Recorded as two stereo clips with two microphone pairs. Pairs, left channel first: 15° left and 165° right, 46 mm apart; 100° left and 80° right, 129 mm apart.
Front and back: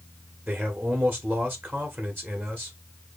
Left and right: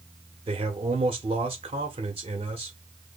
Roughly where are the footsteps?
I don't hear footsteps.